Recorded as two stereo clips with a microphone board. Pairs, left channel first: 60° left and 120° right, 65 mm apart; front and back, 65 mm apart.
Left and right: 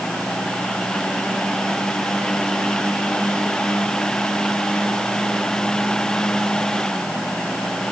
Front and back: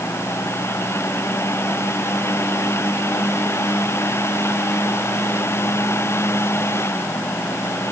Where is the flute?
No flute in this recording.